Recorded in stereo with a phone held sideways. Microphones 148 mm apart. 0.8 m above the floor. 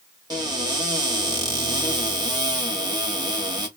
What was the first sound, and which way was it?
A cupboard door, 25° right (ahead or behind).